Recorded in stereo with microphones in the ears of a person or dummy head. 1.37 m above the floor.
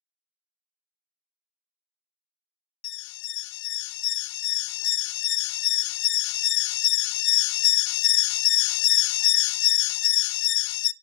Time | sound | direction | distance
2.8 | an alarm | 65° left (ahead or behind) | 0.5 m